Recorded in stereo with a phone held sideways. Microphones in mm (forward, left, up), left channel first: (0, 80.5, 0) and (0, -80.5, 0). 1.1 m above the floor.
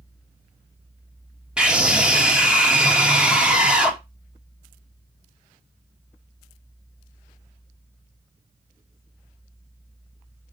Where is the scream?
5° right (ahead or behind), 2.5 m.